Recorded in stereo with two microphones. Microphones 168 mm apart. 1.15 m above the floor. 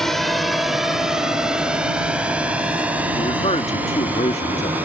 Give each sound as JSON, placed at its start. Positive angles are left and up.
{"t": 0.0, "sound": "a drone", "side_deg": 0}
{"t": 3.1, "sound": "a man speaking", "side_deg": 40}